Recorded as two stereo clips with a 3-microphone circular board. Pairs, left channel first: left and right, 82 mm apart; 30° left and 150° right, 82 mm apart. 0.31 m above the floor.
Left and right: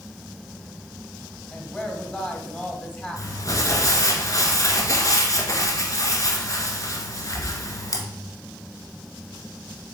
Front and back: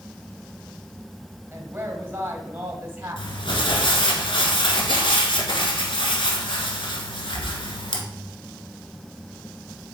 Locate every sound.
1.5 s a woman speaking: 155° left, 1.4 m
3.2 s crumpling: 45° left, 1.3 m